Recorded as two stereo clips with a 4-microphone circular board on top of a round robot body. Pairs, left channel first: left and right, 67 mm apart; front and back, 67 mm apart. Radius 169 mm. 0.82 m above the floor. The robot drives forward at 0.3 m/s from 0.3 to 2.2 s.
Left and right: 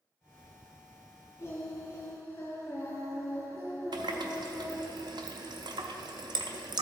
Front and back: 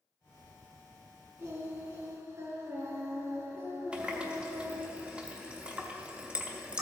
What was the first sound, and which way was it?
Singing, 135° left.